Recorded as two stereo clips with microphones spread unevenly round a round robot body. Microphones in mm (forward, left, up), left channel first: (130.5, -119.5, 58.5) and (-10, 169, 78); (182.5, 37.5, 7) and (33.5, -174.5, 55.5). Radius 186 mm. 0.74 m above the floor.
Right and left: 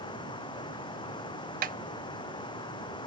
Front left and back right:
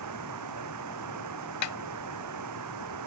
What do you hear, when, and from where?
0.0 s running water: 140° right
1.6 s a snare drum: 60° left